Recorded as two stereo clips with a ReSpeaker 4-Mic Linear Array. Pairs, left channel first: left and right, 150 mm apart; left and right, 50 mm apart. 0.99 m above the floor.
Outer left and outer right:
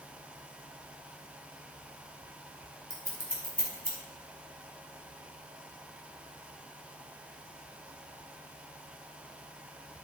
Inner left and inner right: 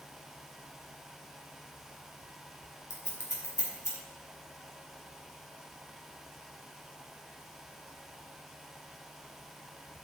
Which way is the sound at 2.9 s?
75° left (ahead or behind).